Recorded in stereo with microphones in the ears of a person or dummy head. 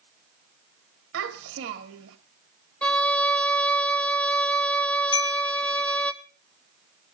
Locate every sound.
1.1 s a child speaking: 90° right, 1.7 m
2.8 s a violin: 5° left (ahead or behind), 0.9 m
5.1 s a chime: 30° left (ahead or behind), 0.6 m